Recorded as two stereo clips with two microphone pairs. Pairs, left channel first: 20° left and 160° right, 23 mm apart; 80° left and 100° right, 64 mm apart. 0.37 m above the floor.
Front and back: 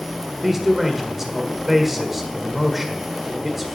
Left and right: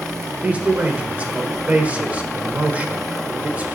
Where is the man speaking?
105° right, 1.4 m.